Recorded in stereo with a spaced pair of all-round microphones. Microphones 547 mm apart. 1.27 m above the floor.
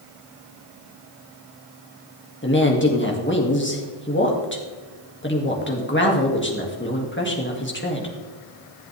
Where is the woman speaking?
20° left (ahead or behind), 2 m.